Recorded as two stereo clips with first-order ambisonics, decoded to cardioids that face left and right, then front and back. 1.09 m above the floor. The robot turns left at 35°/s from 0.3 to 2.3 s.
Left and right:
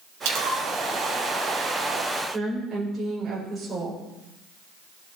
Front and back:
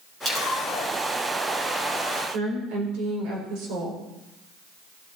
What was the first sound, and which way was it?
A splash, 105° right.